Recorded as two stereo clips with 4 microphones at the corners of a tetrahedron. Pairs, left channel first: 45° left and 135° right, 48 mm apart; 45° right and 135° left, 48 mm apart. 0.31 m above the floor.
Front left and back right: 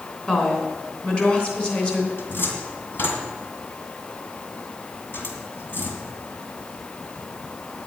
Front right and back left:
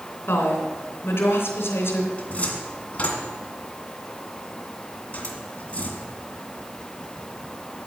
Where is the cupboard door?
10° left, 2 m.